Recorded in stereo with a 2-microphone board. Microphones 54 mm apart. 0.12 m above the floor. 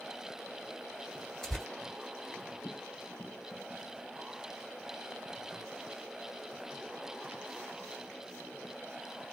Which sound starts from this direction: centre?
Tearing paper, at 1.4 s.